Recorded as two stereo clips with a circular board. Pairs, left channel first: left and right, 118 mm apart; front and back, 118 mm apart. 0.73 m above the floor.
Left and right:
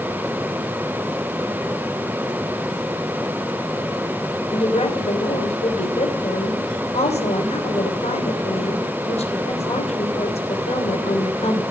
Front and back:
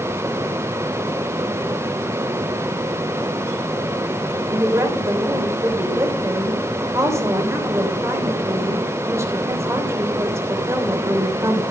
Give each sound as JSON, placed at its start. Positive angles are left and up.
{"t": 4.5, "sound": "a woman speaking", "azimuth_deg": 115, "distance_m": 3.0}